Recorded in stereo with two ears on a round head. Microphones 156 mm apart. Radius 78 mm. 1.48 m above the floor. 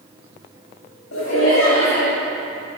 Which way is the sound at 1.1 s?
80° left.